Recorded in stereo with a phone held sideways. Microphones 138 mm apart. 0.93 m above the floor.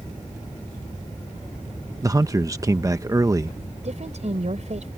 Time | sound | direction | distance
2.0 | a man speaking | 25° right (ahead or behind) | ?
3.8 | a woman speaking | 55° right (ahead or behind) | ?